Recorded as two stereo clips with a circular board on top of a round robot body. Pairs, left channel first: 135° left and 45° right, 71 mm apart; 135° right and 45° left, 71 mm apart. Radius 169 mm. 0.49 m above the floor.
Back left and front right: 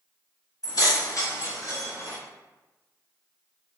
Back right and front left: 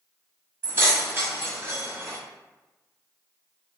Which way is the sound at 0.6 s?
105° left.